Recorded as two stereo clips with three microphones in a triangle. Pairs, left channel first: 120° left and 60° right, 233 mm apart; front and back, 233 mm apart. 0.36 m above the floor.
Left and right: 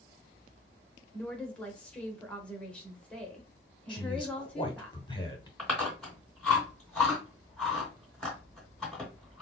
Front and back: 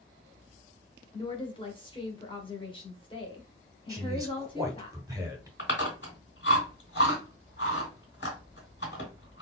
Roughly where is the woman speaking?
Ahead left.